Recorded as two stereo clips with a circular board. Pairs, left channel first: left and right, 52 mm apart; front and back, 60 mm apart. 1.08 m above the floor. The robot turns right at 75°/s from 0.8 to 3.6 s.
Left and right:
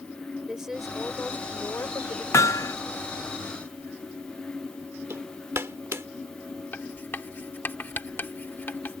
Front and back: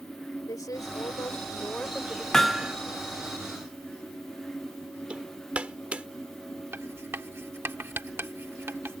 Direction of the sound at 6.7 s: 140° left.